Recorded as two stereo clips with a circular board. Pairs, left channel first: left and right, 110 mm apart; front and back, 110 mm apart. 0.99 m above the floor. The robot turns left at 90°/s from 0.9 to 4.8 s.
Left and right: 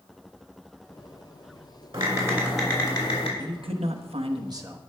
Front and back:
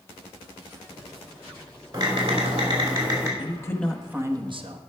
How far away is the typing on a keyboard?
About 2.5 m.